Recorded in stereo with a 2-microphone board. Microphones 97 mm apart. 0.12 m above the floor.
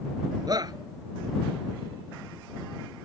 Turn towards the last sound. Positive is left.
turn(degrees=-45)  # may be behind; listen again after turning